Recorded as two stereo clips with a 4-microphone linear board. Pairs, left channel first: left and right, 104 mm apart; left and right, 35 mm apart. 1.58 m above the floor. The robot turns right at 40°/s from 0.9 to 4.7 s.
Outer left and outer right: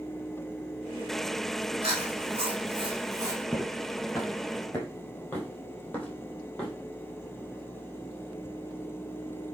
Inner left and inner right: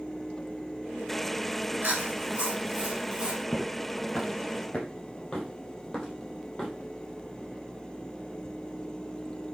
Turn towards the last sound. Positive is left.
turn(degrees=10)  # may be behind; listen again after turning